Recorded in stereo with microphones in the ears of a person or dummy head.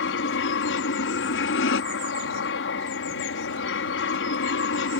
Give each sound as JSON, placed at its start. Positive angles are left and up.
{"t": 0.0, "sound": "an aircraft", "side_deg": 60}